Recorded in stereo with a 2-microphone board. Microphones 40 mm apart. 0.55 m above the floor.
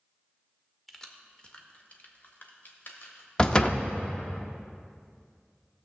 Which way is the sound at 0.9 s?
5° left (ahead or behind).